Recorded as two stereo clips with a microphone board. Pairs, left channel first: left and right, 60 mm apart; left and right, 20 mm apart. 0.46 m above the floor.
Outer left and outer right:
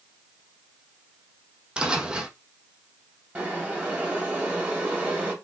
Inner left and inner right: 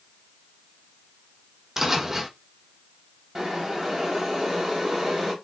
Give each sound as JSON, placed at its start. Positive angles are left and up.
{"t": 1.8, "sound": "footsteps", "side_deg": -15, "distance_m": 0.7}
{"t": 3.4, "sound": "boiling", "side_deg": -25, "distance_m": 1.6}